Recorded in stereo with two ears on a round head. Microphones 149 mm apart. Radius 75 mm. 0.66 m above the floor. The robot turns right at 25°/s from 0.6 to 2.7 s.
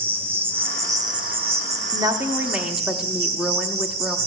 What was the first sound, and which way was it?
An insect, 165° right.